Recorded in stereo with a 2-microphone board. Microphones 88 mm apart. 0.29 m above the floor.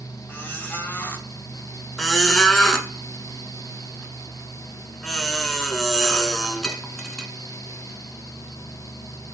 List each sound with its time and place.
0.3 s a squeak: 20° left (ahead or behind), 0.6 m
2.0 s a squeak: 5° left (ahead or behind), 0.5 m